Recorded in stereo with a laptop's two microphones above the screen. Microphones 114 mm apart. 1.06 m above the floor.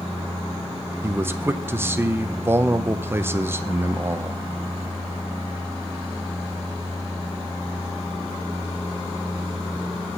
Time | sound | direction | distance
1.0 | a man speaking | 20° right (ahead or behind) | 0.6 m